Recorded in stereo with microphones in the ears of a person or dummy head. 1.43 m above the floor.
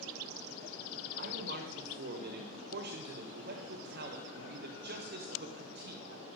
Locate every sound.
1.2 s a man speaking: 50° right (ahead or behind), 1.4 m